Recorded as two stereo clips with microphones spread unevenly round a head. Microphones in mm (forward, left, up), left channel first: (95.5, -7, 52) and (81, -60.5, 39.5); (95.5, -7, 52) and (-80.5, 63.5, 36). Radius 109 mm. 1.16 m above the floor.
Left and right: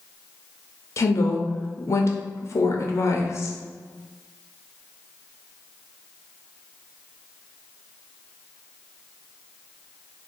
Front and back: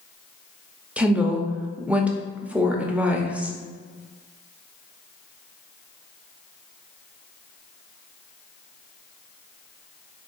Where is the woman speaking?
85° left, 0.7 m.